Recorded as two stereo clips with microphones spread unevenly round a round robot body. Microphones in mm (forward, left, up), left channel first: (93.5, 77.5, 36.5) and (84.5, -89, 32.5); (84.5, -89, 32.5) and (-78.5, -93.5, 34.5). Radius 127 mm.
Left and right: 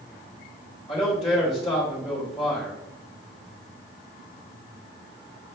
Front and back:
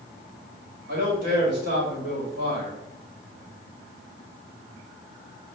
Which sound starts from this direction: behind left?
A man speaking, at 0.9 s.